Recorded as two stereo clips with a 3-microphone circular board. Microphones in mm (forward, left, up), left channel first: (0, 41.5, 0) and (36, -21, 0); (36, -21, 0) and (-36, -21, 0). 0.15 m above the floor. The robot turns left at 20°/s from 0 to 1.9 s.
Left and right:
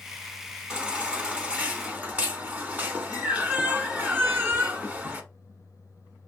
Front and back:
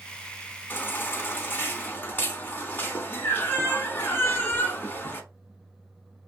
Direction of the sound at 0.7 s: 10° left.